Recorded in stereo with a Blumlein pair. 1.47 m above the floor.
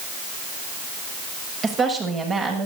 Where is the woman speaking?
20° right, 7 m.